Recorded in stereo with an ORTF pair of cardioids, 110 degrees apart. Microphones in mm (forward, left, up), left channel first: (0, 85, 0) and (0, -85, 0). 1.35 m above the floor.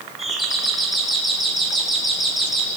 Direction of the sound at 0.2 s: Straight ahead.